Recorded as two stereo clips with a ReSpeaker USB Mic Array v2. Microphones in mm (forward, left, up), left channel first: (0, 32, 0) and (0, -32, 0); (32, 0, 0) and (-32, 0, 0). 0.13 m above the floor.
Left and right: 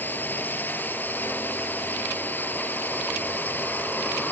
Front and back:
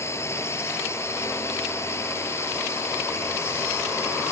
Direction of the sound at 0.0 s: 35° left.